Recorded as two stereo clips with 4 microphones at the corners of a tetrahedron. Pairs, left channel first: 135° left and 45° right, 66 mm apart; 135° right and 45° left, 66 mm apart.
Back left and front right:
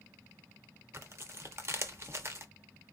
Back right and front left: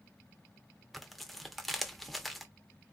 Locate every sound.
0.9 s tearing paper: 50° right, 0.5 m